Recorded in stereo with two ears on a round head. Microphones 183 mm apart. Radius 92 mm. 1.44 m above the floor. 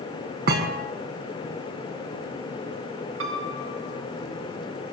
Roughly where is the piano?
Right.